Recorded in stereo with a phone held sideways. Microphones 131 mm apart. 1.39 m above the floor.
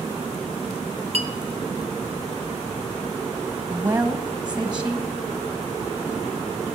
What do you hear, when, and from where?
1.1 s a clink: 55° right (ahead or behind), 1.1 m
3.7 s a woman speaking: 30° right (ahead or behind), 1.5 m